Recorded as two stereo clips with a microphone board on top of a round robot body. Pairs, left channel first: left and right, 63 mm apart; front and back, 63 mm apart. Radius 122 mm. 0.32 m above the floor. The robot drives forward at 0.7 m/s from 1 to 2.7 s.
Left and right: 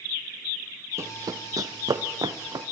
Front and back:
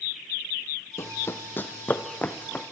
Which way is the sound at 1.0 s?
45° right.